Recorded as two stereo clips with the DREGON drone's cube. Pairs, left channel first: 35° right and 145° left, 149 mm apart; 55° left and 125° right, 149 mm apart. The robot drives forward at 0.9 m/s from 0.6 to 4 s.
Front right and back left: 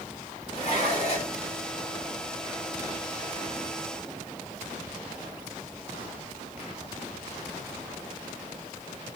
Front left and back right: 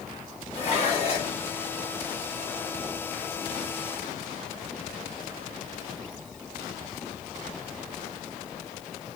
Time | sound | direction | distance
0.5 | dishes clattering | 10° left | 2.5 m